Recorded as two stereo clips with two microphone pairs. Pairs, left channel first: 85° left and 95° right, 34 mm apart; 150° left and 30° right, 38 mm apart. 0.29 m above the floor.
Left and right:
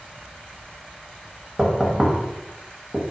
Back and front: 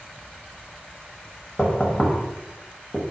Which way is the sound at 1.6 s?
160° right.